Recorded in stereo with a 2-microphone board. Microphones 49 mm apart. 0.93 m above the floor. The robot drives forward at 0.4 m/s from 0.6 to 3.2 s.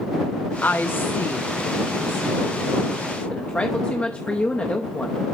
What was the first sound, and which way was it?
A woman speaking, 35° left (ahead or behind).